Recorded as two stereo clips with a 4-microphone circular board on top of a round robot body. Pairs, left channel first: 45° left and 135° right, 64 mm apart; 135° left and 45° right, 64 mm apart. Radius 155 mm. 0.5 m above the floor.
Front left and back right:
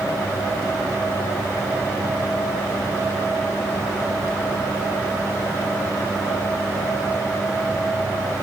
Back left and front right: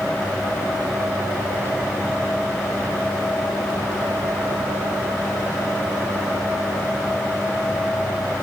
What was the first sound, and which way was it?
Only background noise.